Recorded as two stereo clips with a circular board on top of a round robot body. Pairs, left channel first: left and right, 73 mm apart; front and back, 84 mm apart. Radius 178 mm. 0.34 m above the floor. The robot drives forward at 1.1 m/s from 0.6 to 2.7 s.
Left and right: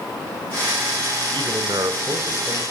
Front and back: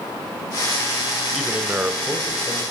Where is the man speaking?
100° right, 2 m; by 2.6 s 130° right, 3 m.